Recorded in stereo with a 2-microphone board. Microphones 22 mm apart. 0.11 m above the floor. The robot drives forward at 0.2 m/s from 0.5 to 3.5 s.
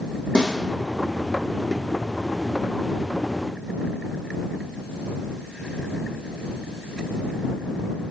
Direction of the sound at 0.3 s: 45° left (ahead or behind).